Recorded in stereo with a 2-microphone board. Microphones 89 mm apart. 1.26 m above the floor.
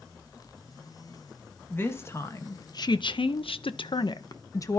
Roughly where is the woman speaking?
Left.